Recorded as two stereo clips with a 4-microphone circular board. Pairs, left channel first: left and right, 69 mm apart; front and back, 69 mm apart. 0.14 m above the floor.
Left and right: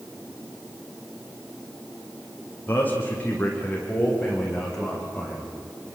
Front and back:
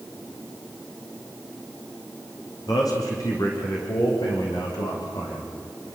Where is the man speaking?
30° left, 6.5 m; by 6.0 s straight ahead, 9 m.